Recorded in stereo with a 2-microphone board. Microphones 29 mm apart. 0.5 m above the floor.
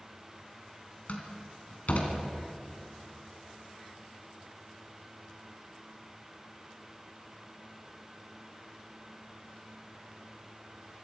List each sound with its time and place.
1.1 s a door slam: 60° left (ahead or behind), 3 m